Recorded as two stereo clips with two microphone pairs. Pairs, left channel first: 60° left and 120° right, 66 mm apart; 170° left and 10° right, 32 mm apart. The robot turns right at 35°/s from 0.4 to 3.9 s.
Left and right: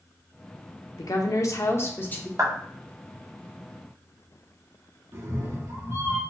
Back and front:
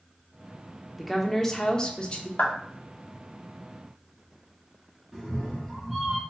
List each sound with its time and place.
1.0 s a woman speaking: 80° left, 0.8 m; by 2.3 s 125° left, 0.8 m
2.4 s a clap: 160° right, 1.0 m; by 2.5 s 155° right, 1.0 m
5.1 s a cat meowing: 95° right, 1.9 m